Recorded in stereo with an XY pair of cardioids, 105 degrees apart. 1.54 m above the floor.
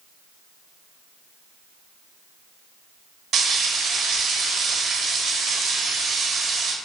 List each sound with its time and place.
3.3 s frying: 65° right, 1.1 m